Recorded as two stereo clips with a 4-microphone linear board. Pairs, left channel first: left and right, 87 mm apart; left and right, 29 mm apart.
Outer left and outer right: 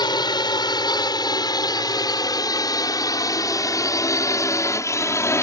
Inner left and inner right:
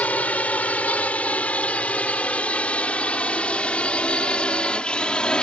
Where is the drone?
50° left (ahead or behind); by 5.4 s 30° left (ahead or behind).